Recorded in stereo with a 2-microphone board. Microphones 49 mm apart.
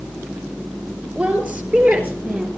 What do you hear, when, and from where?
1.1 s a woman speaking: 35° right (ahead or behind), 4.5 m; by 2.5 s 40° right (ahead or behind), 3 m